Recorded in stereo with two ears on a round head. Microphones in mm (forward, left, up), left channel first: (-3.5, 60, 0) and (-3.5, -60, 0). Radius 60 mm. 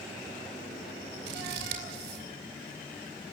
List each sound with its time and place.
1.3 s scissors: 80° right, 4 m